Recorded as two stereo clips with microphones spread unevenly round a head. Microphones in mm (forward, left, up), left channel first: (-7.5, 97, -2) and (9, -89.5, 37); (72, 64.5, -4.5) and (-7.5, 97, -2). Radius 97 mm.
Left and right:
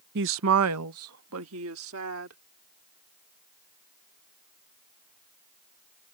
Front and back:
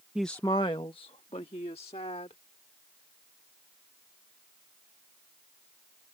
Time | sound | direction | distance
0.1 | a woman speaking | 120° right | ?